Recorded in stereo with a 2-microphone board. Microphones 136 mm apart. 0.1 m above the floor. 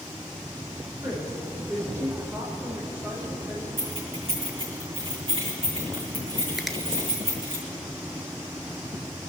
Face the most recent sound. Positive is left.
turn(degrees=0)  # may be behind; listen again after turning